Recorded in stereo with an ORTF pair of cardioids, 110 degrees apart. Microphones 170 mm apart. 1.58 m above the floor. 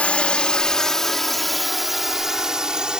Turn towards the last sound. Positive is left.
turn(degrees=-5)